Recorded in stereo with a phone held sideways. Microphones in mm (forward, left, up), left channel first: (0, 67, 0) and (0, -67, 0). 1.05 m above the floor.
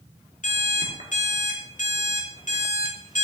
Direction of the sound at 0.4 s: 70° left (ahead or behind).